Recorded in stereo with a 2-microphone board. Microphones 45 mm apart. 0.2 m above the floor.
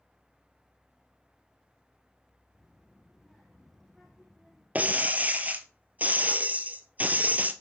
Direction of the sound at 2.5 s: 5° left (ahead or behind).